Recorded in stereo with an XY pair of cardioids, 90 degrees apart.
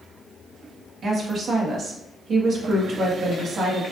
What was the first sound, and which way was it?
A woman speaking, 55° right.